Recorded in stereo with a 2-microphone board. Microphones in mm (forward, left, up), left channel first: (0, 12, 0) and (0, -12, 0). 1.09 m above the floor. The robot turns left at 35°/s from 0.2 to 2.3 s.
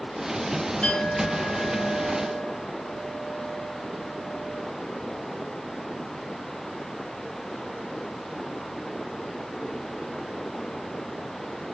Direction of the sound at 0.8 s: 150° left.